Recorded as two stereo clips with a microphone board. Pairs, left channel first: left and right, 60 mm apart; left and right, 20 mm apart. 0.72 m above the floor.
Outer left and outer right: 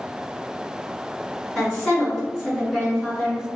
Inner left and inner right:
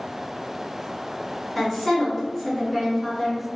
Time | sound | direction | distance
1.6 | a woman speaking | 15° left (ahead or behind) | 1.3 m